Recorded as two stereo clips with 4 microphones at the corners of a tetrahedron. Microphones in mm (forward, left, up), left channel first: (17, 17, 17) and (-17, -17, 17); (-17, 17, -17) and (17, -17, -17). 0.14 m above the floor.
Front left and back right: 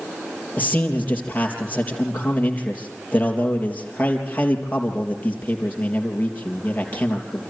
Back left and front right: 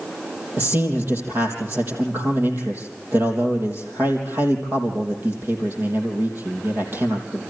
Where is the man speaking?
5° right, 3.5 m.